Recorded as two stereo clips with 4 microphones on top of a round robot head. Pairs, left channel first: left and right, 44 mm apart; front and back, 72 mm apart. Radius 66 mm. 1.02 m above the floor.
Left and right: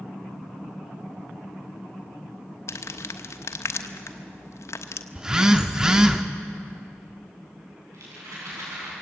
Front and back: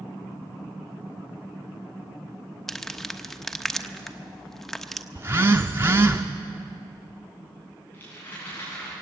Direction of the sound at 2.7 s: 85° left.